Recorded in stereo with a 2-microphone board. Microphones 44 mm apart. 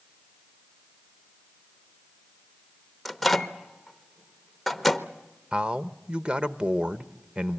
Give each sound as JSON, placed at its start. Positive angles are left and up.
{"t": 3.0, "sound": "a microwave", "side_deg": 0, "distance_m": 0.9}
{"t": 5.5, "sound": "a man speaking", "side_deg": -25, "distance_m": 0.8}